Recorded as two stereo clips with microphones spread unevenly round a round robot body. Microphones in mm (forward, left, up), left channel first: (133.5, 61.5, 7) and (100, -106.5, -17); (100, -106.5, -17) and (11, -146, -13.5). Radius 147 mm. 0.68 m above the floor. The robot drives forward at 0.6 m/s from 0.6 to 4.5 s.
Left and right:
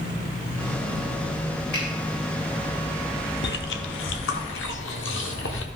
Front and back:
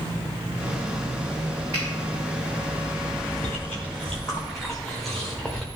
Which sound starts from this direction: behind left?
A finger snap, at 1.7 s.